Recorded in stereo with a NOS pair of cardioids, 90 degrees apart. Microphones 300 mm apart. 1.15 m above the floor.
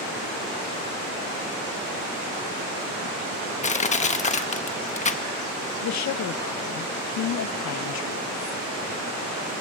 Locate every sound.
3.6 s crushing: 25° left, 1.2 m
5.8 s a woman speaking: 65° left, 1.0 m